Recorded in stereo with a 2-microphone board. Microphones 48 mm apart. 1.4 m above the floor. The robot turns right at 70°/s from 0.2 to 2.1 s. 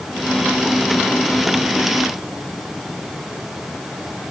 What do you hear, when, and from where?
Only background noise.